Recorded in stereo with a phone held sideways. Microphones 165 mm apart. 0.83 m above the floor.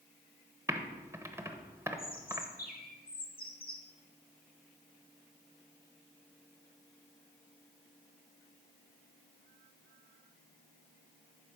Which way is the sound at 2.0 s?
55° left (ahead or behind).